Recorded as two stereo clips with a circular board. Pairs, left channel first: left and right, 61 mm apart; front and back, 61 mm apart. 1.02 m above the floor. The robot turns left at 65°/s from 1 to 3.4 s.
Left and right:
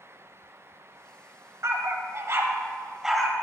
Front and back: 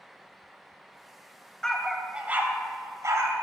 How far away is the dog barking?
About 1.2 m.